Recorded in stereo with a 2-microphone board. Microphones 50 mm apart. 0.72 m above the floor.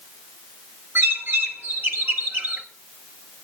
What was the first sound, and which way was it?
A bird, 45° right (ahead or behind).